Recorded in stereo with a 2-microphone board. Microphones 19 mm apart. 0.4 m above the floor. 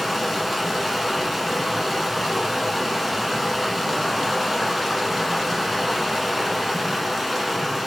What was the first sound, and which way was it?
Running water, centre (ahead or behind).